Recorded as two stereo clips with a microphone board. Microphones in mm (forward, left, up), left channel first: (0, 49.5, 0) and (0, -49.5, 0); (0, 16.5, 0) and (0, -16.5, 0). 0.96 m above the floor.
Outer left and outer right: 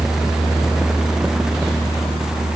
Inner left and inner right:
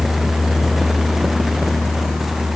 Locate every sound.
Only background noise.